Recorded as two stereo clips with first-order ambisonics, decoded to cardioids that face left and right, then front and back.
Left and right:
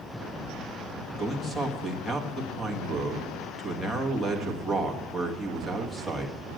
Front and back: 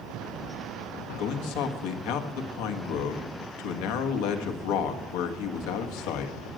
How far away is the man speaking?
About 1.5 m.